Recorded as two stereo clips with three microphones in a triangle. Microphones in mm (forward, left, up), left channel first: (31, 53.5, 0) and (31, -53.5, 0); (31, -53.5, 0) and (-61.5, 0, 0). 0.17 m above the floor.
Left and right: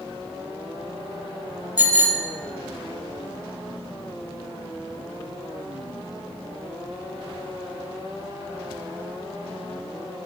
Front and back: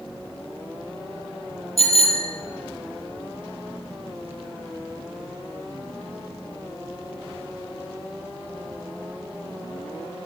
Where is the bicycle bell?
15° right, 3.5 m.